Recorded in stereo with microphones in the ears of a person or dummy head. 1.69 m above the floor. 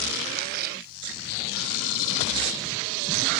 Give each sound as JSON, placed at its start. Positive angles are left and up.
{"t": 0.4, "sound": "a splash", "side_deg": -60}